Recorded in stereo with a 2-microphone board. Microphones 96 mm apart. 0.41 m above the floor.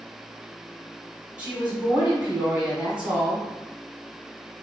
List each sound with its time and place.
1.4 s a woman speaking: 15° right (ahead or behind), 1.4 m